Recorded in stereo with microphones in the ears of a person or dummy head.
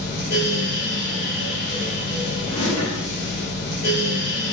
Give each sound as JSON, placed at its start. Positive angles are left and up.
{"t": 0.0, "sound": "a fan", "side_deg": 50, "distance_m": 0.7}
{"t": 2.5, "sound": "a drawer", "side_deg": 35, "distance_m": 1.5}